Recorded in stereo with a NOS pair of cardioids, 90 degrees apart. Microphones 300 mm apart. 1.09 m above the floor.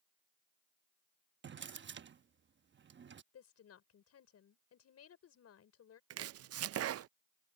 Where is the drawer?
40° right.